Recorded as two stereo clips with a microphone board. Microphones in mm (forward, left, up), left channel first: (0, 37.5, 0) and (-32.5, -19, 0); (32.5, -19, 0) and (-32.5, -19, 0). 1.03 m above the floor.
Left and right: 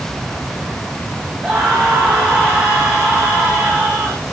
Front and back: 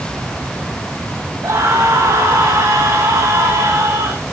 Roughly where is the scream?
Behind.